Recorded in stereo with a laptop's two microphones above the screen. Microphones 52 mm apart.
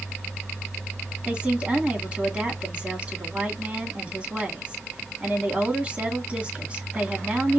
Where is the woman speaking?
20° right (ahead or behind), 2.5 m.